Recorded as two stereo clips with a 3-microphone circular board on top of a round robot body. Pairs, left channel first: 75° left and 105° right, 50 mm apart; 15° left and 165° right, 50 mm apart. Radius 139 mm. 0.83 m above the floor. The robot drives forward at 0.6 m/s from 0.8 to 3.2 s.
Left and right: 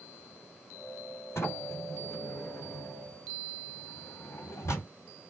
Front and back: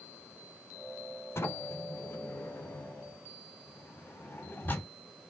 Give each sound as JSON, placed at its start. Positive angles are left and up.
{"t": 1.4, "sound": "a sliding door", "azimuth_deg": 45, "distance_m": 3.5}